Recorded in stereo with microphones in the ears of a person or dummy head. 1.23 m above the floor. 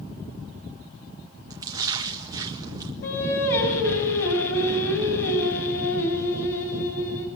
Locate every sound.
1.5 s a splash: 20° right (ahead or behind), 1.8 m
3.0 s singing: 65° left (ahead or behind), 6.5 m